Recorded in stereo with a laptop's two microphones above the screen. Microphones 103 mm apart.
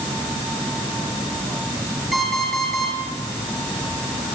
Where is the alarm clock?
Centre (ahead or behind), 7.5 m.